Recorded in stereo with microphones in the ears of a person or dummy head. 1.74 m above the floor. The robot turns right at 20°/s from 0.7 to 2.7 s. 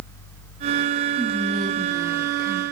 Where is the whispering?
Centre (ahead or behind), 3 m; by 2.6 s 30° right (ahead or behind), 3 m.